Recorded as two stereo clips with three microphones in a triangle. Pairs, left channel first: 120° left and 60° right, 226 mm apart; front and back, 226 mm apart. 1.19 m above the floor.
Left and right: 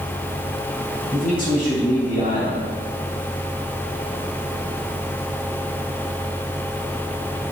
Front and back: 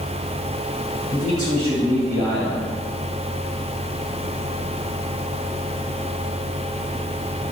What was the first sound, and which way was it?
A man speaking, 175° left.